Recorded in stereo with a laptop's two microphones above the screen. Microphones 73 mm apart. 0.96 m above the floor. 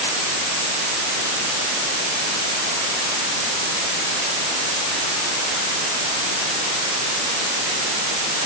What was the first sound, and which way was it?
Only background noise.